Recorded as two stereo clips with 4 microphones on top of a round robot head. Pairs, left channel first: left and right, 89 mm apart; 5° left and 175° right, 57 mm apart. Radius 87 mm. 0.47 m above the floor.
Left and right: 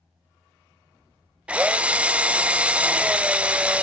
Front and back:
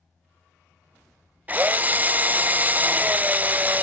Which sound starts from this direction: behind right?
A drill, at 1.5 s.